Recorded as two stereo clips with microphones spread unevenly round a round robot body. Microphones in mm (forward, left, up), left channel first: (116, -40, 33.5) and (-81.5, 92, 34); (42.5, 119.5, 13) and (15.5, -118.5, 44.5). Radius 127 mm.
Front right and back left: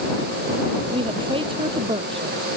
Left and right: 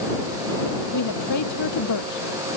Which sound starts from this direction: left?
A woman speaking, at 0.9 s.